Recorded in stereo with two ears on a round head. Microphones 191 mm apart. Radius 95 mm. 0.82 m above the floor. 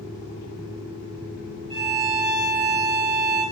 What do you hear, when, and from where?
1.7 s a violin: 25° right (ahead or behind), 0.9 m